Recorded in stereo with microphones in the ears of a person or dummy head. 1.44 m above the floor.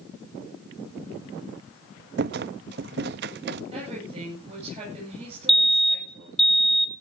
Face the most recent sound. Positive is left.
turn(degrees=0)  # may be behind; listen again after turning